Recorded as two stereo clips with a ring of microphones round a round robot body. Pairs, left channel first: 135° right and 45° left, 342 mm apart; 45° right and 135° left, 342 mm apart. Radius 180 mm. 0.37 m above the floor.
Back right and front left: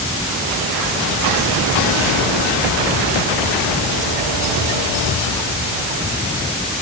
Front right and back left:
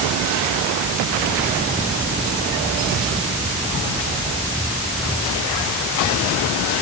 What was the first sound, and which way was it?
Only background noise.